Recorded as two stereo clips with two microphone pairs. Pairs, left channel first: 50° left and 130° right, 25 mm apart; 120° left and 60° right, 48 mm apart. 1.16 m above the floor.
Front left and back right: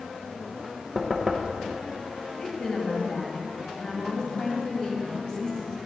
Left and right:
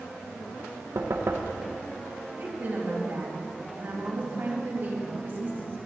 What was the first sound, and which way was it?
Knocking, 50° right.